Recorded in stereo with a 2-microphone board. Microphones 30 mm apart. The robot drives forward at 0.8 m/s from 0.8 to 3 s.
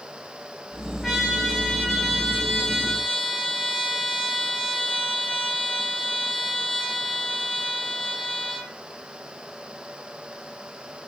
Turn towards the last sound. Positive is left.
turn(degrees=10)  # may be behind; listen again after turning